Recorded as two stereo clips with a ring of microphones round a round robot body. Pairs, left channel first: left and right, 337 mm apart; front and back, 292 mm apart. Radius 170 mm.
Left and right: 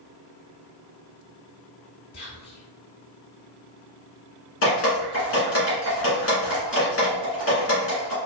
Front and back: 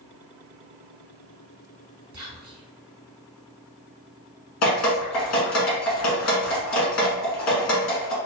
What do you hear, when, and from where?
2.1 s whispering: 120° left, 1.8 m
4.6 s dripping: 35° left, 1.7 m